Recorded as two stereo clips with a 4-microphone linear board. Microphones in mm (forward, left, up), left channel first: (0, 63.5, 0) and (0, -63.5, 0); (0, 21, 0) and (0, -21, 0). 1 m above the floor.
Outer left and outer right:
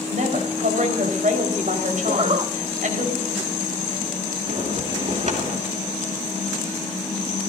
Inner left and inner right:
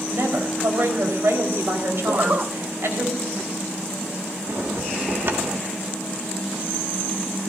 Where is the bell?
60° right (ahead or behind), 2.5 m.